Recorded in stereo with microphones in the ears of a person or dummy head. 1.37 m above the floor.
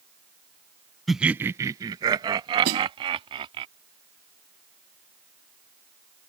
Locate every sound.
1.1 s laughter: centre (ahead or behind); by 3.6 s 30° right (ahead or behind)
2.6 s a snare drum: 50° right (ahead or behind)